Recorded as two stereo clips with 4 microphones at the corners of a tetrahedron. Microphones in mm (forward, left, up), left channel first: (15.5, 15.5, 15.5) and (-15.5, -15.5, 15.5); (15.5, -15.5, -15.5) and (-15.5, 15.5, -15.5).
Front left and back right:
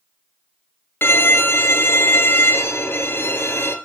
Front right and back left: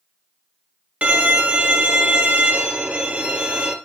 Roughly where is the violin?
Left.